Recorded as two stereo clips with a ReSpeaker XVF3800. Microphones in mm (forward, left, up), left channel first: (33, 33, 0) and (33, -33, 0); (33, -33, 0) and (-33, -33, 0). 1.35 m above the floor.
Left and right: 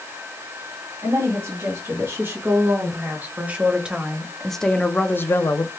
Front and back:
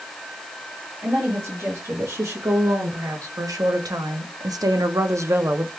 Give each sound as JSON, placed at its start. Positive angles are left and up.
{"t": 1.0, "sound": "a woman speaking", "azimuth_deg": -135, "distance_m": 2.5}